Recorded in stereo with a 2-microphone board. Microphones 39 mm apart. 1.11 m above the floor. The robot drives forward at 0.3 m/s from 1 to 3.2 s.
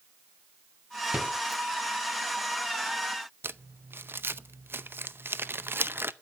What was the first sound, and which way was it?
A rattle, 20° right (ahead or behind).